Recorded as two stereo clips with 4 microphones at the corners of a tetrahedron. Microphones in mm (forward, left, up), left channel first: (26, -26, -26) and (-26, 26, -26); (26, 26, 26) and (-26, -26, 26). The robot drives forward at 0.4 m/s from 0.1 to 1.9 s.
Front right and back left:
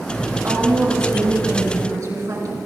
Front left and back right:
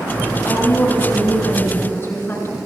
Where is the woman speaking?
95° left, 6.5 m; by 2.6 s 100° left, 6.5 m.